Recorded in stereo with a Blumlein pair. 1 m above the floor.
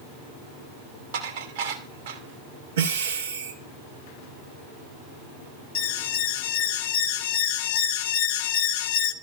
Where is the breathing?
65° right, 1.7 m.